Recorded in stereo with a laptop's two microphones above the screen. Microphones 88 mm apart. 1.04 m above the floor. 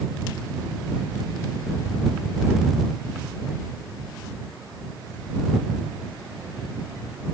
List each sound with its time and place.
Only background noise.